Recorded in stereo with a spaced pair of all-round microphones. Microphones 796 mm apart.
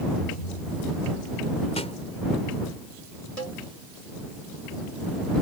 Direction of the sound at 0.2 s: 85° left.